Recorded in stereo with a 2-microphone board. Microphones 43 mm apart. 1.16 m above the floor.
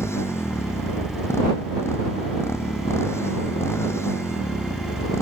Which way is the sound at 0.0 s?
90° left.